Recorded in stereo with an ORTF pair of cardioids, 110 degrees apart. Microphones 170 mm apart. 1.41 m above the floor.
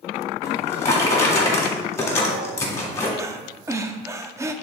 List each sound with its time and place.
0.4 s a drawer: 15° left, 1.9 m
3.2 s breathing: 15° right, 0.6 m